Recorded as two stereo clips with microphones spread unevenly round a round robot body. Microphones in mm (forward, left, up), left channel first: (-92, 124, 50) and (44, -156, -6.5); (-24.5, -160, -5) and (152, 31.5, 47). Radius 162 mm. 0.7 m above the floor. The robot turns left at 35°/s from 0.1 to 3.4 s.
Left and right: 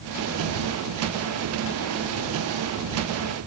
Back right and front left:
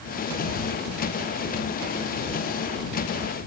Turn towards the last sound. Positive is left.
No sound to turn to.